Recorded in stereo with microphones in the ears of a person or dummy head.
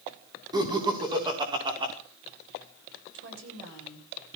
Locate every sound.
0.5 s laughter: 20° right (ahead or behind), 5 m; by 1.9 s 25° right (ahead or behind), 5.5 m
3.1 s a woman speaking: 80° right, 7 m